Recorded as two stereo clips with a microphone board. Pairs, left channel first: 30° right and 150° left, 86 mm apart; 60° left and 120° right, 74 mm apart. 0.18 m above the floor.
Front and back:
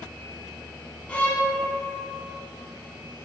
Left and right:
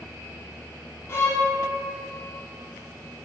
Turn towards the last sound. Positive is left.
turn(degrees=30)